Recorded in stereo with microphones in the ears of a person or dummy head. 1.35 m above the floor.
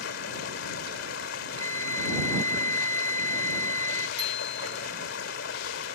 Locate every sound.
0.0 s running water: 75° left (ahead or behind)
1.6 s a flute: 20° left (ahead or behind)
4.2 s a bicycle bell: 25° right (ahead or behind)